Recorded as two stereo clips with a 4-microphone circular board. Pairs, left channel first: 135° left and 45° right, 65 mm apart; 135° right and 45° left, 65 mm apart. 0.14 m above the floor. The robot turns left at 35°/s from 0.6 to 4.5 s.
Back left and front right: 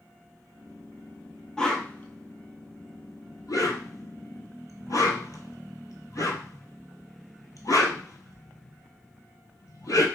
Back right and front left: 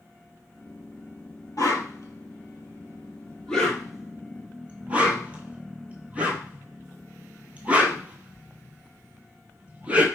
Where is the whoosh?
145° right, 0.9 m; by 10.1 s 110° left, 0.9 m.